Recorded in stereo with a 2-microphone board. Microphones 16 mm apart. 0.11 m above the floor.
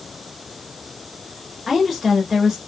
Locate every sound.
1.7 s a woman speaking: 15° right (ahead or behind), 1.2 m